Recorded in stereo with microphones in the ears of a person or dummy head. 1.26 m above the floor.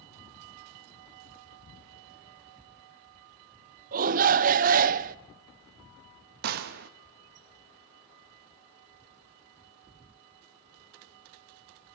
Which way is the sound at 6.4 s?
50° right (ahead or behind).